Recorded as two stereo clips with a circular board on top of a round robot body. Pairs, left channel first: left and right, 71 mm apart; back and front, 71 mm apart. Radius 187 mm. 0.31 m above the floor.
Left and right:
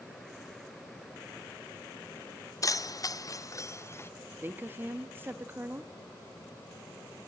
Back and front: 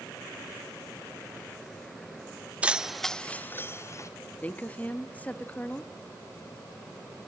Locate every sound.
2.6 s keys jangling: 70° left, 0.8 m; by 4.1 s 140° left, 1.1 m
4.4 s a woman speaking: 125° right, 1.2 m